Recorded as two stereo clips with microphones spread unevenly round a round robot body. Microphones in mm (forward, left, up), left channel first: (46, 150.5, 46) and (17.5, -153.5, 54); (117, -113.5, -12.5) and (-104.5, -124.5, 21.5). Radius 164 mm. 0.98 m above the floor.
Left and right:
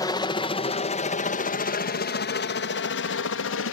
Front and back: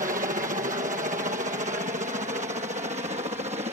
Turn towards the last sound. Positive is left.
turn(degrees=115)